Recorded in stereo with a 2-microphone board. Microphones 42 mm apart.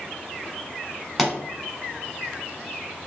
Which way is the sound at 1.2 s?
5° right (ahead or behind).